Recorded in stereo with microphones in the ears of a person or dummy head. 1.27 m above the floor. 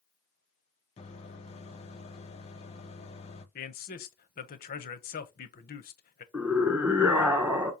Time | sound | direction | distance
1.0 | a microwave | 30° left (ahead or behind) | 0.5 m
3.5 | a man speaking | 45° left (ahead or behind) | 0.6 m
6.3 | a scream | 10° right (ahead or behind) | 1.0 m